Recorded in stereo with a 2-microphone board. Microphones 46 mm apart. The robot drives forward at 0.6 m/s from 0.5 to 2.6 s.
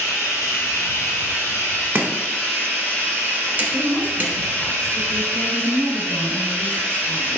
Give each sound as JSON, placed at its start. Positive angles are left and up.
{"t": 0.0, "sound": "running water", "side_deg": 80, "distance_m": 1.2}
{"t": 1.9, "sound": "chopping", "side_deg": -40, "distance_m": 0.8}
{"t": 3.7, "sound": "a woman speaking", "side_deg": 15, "distance_m": 1.0}